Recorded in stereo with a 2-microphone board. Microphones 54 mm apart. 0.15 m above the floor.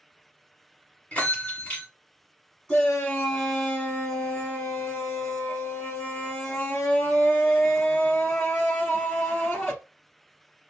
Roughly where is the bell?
Left.